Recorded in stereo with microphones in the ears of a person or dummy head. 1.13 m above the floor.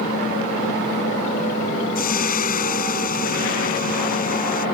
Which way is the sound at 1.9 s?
45° left (ahead or behind).